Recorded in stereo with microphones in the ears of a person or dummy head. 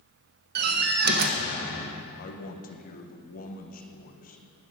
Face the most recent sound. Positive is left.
turn(degrees=45)  # may be behind; listen again after turning